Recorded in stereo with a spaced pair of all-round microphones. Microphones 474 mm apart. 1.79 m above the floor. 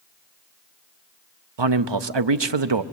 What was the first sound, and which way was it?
A man speaking, 60° right (ahead or behind).